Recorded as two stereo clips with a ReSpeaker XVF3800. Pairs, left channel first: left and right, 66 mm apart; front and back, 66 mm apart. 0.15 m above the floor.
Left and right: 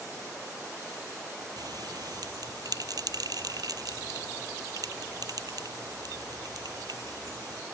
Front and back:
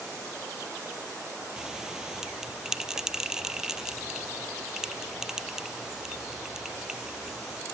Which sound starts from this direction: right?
A bell, at 1.6 s.